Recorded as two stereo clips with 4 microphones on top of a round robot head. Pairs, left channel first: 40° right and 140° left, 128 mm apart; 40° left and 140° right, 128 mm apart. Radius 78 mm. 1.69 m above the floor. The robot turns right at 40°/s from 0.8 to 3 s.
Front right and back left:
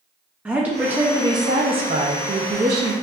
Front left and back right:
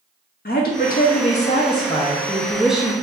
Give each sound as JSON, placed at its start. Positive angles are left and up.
{"t": 0.5, "sound": "a woman speaking", "azimuth_deg": 60, "distance_m": 0.7}